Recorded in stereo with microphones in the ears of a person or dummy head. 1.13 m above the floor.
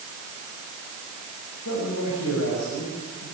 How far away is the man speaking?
About 6 m.